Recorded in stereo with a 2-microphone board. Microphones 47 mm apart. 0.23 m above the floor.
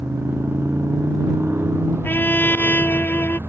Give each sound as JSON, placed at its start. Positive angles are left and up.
{"t": 0.0, "sound": "a motorcycle", "side_deg": -65}
{"t": 2.0, "sound": "a trumpet", "side_deg": 45}